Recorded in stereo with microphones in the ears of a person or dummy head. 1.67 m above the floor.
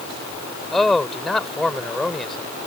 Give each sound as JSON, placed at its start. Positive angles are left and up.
{"t": 0.7, "sound": "a man speaking", "side_deg": 5}